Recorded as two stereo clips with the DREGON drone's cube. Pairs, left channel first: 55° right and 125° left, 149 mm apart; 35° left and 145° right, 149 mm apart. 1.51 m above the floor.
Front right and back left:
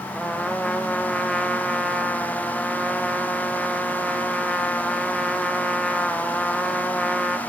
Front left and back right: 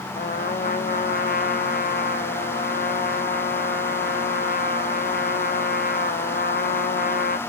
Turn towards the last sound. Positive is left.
turn(degrees=30)